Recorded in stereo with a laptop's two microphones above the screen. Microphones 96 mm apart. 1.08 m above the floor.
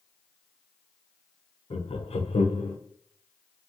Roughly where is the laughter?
Left.